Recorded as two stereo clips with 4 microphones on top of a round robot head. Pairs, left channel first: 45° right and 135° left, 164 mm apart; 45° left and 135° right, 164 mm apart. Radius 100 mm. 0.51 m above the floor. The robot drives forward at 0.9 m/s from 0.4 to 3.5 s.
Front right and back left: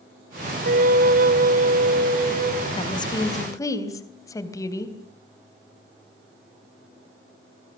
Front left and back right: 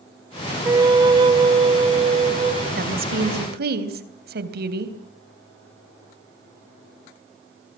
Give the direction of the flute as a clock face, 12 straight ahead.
7 o'clock.